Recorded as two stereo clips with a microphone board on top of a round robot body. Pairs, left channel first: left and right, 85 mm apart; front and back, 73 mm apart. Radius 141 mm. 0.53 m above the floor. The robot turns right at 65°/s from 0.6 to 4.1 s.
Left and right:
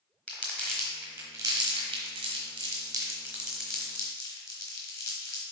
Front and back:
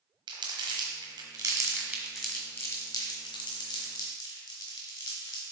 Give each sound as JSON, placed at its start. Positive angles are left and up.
{"t": 0.3, "sound": "crumpling", "azimuth_deg": 170, "distance_m": 1.1}